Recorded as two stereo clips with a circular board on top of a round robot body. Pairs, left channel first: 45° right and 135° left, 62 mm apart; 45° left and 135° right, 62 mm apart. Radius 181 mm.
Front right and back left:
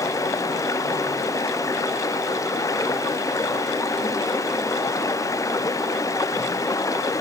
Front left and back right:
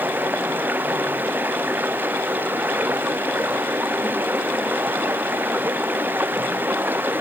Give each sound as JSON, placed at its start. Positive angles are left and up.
{"t": 0.0, "sound": "running water", "azimuth_deg": -75}